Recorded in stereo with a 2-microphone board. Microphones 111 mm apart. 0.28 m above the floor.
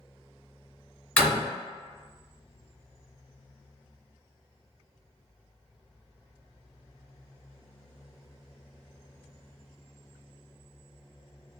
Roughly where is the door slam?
Centre.